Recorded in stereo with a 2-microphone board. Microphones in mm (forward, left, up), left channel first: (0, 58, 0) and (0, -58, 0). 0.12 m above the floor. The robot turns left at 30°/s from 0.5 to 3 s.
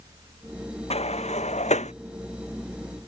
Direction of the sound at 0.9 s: 65° left (ahead or behind).